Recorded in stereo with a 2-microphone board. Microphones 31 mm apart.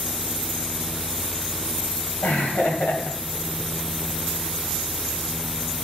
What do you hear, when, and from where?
2.2 s laughter: 70° left (ahead or behind), 2.5 m